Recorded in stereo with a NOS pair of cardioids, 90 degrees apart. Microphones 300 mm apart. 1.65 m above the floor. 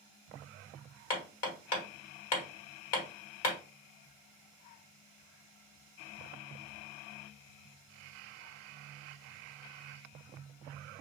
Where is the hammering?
55° left, 1.6 m.